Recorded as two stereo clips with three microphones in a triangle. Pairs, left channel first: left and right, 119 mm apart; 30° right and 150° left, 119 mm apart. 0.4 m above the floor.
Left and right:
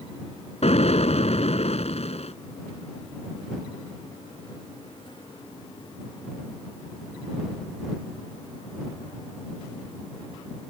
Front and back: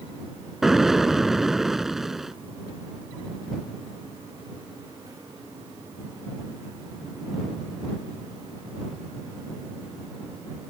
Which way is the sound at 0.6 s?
65° left.